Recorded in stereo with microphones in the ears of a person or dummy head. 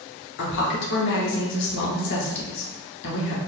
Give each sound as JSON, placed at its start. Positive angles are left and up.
{"t": 0.4, "sound": "a woman speaking", "side_deg": 65, "distance_m": 0.9}